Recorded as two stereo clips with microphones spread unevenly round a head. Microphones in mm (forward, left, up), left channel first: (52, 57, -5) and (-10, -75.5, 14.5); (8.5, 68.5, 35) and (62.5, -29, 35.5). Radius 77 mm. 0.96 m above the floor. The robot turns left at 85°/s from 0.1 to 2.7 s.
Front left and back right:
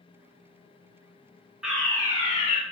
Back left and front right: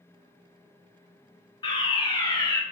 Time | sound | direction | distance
1.6 | a fire alarm | 155° left | 2.5 m